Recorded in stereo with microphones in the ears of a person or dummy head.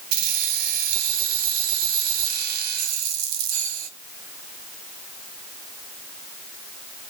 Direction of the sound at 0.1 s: 55° right (ahead or behind).